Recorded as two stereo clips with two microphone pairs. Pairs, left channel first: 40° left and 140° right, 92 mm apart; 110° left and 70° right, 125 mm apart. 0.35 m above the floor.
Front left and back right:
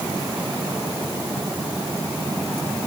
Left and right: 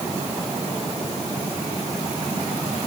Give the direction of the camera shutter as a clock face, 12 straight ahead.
I don't hear a camera shutter.